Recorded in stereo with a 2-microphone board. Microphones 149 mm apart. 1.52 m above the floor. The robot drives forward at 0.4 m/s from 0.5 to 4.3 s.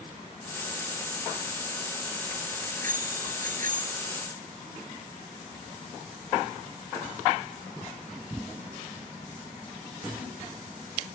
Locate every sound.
2.6 s a bicycle bell: 65° right (ahead or behind)